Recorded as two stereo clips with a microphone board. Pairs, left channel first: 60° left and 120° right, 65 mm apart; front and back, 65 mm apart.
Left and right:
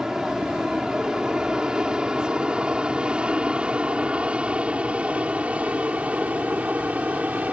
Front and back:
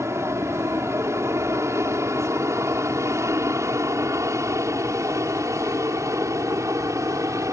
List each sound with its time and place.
0.0 s an aircraft: 165° left; by 7.5 s straight behind